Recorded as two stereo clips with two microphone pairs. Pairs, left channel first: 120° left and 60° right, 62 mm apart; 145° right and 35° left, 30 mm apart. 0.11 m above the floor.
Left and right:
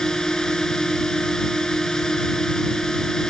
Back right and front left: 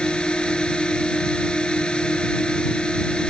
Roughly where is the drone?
Behind.